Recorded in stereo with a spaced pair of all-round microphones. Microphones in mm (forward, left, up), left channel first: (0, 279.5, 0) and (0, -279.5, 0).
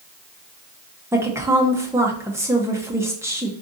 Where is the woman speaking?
5° right (ahead or behind), 0.6 m.